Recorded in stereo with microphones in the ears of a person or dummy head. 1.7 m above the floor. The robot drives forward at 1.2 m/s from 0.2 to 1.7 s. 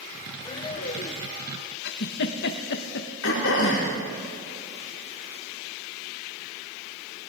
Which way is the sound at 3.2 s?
80° left.